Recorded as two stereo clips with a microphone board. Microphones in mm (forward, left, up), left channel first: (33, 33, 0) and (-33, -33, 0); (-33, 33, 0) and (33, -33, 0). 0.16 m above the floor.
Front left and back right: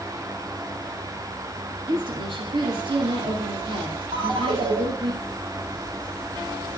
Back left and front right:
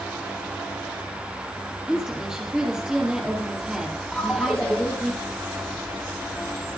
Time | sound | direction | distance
1.9 | a woman speaking | 125° right | 4 m
4.1 | a ringtone | 145° right | 3 m